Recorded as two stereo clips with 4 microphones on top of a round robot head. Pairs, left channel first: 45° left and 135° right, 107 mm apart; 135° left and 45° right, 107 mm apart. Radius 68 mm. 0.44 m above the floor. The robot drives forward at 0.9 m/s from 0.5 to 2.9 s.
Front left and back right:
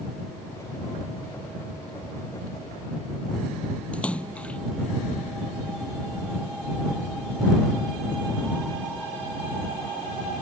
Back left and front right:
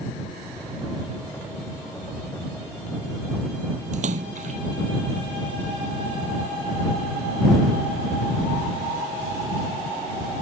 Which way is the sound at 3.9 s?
35° right.